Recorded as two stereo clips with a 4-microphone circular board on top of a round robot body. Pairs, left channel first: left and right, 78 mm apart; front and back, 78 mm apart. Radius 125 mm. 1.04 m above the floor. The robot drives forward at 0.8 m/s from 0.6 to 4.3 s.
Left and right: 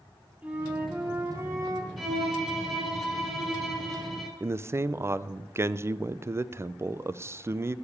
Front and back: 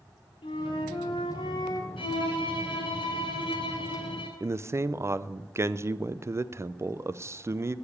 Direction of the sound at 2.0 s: Straight ahead.